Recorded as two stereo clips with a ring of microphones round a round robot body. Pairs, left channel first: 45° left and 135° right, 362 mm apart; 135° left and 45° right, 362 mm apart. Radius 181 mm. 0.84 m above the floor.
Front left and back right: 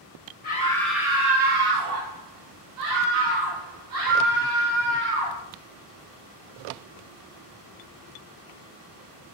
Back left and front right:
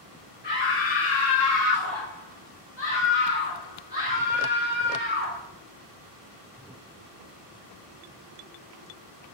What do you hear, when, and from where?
0.4 s a scream: 90° left, 0.8 m; by 5.4 s 160° right, 3.5 m